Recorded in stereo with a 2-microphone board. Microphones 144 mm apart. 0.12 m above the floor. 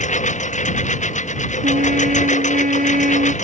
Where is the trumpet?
80° right.